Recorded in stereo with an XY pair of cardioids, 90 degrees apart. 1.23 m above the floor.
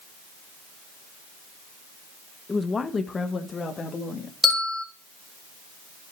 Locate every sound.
2.5 s a woman speaking: 30° left, 1.1 m; by 4.3 s 50° left, 2.5 m
4.4 s a bell: 15° left, 3.5 m